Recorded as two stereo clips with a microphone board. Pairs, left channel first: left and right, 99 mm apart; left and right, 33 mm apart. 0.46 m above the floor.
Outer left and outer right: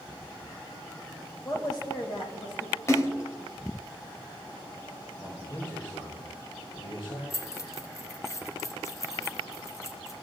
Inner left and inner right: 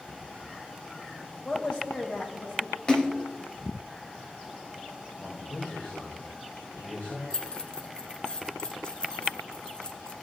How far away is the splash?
About 1.0 m.